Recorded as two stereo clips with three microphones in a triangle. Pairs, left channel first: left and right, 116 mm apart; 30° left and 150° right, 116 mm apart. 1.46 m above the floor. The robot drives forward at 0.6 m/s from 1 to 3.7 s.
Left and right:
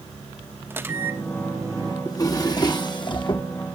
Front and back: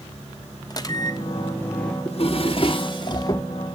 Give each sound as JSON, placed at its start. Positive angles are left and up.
{"t": 0.7, "sound": "a microwave", "azimuth_deg": -20, "distance_m": 1.0}
{"t": 2.0, "sound": "a drawer", "azimuth_deg": 35, "distance_m": 1.5}